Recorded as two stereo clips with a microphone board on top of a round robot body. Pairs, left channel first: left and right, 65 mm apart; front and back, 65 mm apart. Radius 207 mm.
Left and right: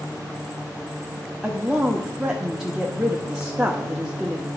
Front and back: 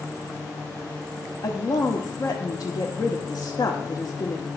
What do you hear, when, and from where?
1.4 s a woman speaking: 10° right, 1.6 m